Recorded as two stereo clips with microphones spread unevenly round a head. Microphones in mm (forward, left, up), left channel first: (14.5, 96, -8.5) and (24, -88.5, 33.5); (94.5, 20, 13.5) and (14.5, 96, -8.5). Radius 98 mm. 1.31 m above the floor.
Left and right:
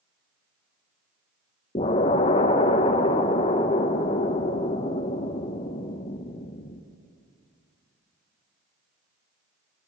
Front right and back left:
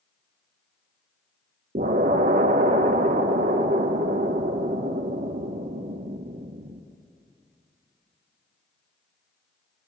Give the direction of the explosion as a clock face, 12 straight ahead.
7 o'clock.